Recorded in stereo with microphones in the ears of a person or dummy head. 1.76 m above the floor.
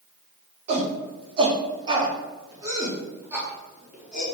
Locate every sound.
0.7 s a shout: 35° right (ahead or behind), 3.5 m; by 4.2 s centre (ahead or behind), 4 m